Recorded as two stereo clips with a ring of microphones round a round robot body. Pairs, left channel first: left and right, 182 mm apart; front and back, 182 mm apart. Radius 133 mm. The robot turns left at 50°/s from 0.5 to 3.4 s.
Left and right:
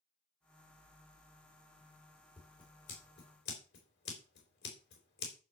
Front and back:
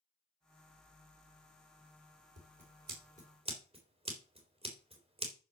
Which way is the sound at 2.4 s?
175° left.